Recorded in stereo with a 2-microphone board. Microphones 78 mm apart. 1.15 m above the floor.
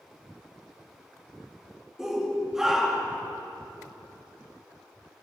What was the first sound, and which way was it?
A shout, 5° right (ahead or behind).